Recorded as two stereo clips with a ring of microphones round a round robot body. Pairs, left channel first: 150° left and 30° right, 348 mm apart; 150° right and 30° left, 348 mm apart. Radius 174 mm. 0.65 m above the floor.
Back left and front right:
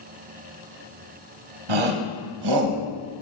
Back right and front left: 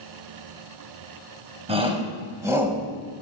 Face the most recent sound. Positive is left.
turn(degrees=-55)